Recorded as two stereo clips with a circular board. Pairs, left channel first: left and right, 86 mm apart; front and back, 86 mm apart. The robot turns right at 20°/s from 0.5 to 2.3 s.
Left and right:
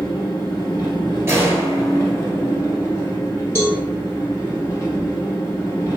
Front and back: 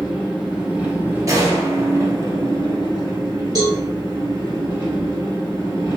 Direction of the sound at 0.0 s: 105° left.